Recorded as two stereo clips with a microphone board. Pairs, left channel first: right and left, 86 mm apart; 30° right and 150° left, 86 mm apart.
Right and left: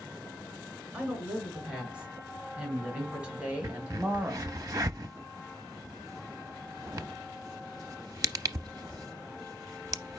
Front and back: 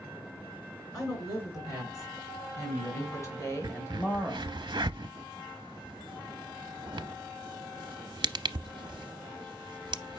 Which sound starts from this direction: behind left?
A crack, at 3.6 s.